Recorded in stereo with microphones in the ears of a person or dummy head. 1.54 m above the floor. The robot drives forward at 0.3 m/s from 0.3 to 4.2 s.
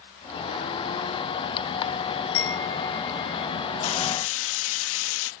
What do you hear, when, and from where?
2.3 s a chime: 75° left (ahead or behind); by 3.5 s 70° left (ahead or behind)
3.8 s frying: 80° left; by 5.3 s 85° left